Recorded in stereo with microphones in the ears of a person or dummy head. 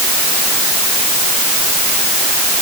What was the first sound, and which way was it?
Only background noise.